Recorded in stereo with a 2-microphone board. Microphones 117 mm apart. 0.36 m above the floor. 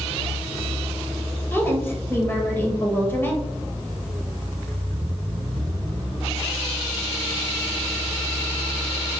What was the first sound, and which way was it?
A woman speaking, 20° left (ahead or behind).